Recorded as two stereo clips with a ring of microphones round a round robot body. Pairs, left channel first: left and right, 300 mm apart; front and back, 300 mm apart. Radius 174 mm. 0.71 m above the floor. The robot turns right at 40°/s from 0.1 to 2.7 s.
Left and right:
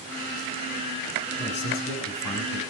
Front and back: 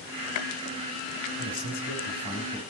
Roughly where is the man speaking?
Ahead left.